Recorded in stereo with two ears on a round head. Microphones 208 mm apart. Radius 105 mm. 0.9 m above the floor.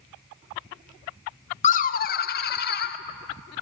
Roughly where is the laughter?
Left.